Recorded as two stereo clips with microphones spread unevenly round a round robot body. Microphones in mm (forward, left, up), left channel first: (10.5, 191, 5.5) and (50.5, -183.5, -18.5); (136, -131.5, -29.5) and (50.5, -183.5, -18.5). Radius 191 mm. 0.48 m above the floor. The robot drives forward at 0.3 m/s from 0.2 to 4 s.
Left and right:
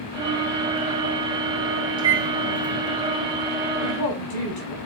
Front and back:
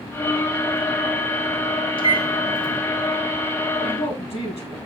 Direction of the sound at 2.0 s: 5° right.